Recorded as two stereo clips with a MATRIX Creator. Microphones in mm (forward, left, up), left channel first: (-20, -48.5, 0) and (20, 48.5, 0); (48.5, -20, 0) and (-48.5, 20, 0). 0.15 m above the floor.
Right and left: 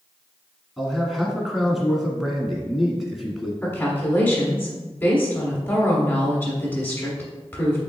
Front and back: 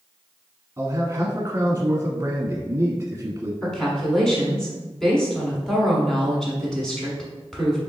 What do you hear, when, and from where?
0.8 s a man speaking: 155° left, 1.1 m
3.6 s a woman speaking: 95° right, 1.2 m